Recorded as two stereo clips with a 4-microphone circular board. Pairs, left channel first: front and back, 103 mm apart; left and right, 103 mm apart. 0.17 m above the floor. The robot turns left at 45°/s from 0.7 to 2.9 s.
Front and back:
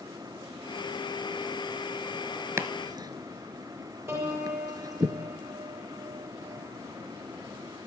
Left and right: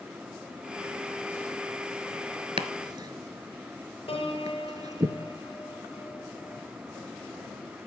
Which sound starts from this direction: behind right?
Chopping, at 2.6 s.